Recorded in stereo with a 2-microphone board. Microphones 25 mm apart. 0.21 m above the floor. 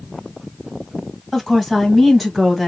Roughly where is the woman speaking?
Centre.